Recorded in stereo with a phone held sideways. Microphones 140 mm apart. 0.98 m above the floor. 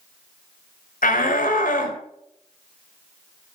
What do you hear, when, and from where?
1.0 s a shout: 80° left, 4 m